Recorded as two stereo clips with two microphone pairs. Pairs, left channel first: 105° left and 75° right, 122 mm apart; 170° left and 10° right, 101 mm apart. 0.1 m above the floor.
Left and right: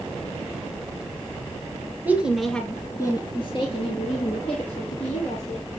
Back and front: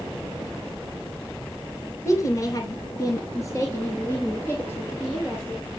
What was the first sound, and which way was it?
A woman speaking, 145° right.